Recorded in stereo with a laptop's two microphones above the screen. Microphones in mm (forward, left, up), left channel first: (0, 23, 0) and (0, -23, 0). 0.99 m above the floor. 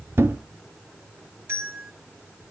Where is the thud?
60° right (ahead or behind), 0.8 m.